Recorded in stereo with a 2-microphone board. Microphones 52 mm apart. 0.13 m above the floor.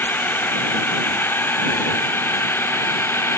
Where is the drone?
40° left (ahead or behind); by 3.4 s 50° left (ahead or behind).